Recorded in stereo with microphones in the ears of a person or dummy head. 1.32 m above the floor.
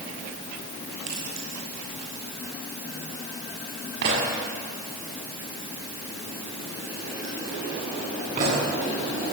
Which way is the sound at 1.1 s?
85° right.